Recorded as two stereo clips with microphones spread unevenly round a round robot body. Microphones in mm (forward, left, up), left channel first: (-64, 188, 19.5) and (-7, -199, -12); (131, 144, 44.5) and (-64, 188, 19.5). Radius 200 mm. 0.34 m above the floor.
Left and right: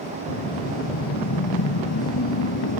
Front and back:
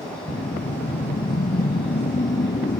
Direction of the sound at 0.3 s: 40° left.